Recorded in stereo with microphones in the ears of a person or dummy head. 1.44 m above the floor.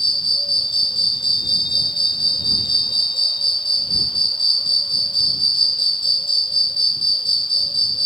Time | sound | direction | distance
0.0 | an insect | 25° left (ahead or behind) | ?